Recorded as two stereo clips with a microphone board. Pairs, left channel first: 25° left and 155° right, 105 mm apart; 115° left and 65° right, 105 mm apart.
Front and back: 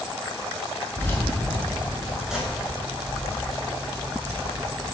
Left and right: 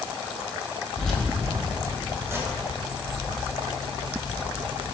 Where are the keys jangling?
40° left, 0.9 m; by 4.9 s 110° right, 1.8 m.